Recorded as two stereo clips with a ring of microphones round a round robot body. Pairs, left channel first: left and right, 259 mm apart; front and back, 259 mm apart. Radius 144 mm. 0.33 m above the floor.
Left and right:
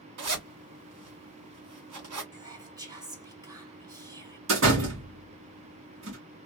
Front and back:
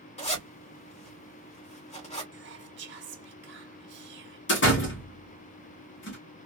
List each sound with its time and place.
0.2 s a zipper: 65° right, 2.5 m
2.3 s whispering: 160° right, 1.5 m
4.5 s a door slam: 45° right, 1.9 m